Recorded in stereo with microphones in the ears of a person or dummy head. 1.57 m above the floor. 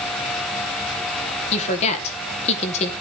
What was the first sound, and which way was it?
A woman speaking, 35° left (ahead or behind).